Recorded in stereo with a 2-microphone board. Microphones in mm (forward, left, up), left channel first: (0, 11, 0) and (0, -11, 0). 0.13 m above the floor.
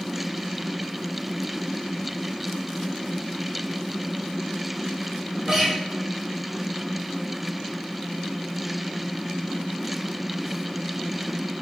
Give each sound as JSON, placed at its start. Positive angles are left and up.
{"t": 5.5, "sound": "a guitar", "side_deg": -25, "distance_m": 1.3}